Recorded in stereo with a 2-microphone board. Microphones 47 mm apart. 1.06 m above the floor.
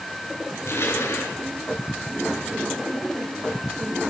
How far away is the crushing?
About 6.5 m.